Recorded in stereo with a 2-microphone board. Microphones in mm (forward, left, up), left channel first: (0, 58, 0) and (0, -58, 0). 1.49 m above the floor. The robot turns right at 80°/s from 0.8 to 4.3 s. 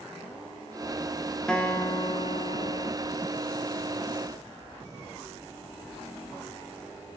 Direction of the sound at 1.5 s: 5° left.